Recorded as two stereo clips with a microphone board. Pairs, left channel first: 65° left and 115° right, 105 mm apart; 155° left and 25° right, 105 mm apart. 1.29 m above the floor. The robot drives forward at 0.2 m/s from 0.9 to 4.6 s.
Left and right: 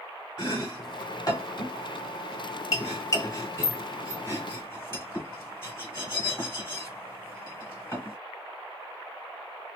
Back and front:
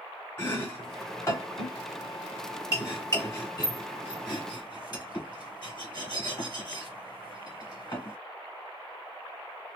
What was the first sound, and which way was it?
Chopping, 95° left.